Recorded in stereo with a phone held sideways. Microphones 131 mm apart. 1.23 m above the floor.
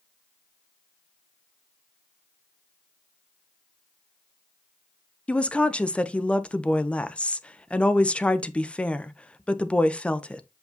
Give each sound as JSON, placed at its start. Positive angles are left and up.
{"t": 5.3, "sound": "a woman speaking", "side_deg": 10, "distance_m": 0.6}